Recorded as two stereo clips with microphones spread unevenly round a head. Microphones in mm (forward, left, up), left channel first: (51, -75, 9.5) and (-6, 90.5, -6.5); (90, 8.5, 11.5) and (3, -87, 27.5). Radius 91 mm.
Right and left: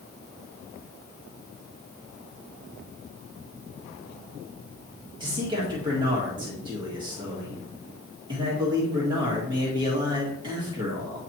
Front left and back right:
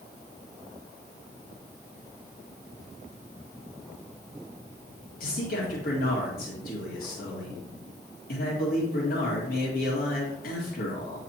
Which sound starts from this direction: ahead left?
A man speaking, at 5.2 s.